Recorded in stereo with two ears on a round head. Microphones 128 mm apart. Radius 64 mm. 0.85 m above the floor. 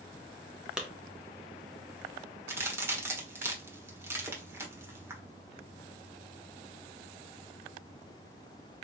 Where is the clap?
5° right (ahead or behind), 0.9 m.